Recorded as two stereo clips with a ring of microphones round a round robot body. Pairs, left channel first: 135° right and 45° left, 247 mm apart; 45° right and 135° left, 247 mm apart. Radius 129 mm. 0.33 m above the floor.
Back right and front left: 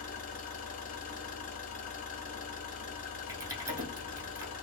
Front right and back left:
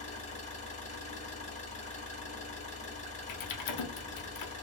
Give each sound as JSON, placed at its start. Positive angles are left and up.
{"t": 0.0, "sound": "an engine running", "azimuth_deg": -95, "distance_m": 1.2}
{"t": 3.3, "sound": "typing on a keyboard", "azimuth_deg": -35, "distance_m": 0.7}